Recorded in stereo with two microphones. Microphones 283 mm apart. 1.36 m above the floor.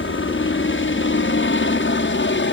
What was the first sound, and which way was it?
A helicopter, 45° left (ahead or behind).